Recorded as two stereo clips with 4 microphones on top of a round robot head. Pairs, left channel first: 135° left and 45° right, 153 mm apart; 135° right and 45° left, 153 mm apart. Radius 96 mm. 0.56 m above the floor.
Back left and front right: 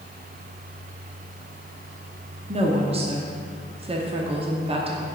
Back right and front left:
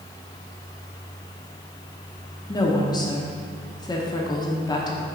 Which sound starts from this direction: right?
A woman speaking, at 2.5 s.